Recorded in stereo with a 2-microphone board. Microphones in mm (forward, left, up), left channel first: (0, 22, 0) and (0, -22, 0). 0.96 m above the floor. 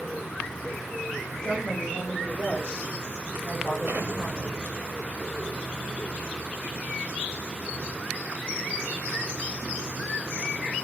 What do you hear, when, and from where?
1.4 s a woman speaking: 20° left (ahead or behind), 5 m; by 4.6 s 35° left (ahead or behind), 5 m
3.9 s an explosion: 50° right (ahead or behind), 1.0 m